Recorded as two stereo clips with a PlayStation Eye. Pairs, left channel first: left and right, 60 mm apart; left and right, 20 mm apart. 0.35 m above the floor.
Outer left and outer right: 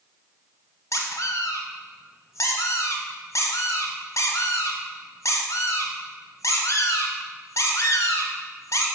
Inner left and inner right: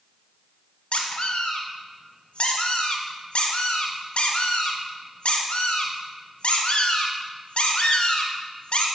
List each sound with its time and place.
0.9 s a squeak: 65° left (ahead or behind), 1.1 m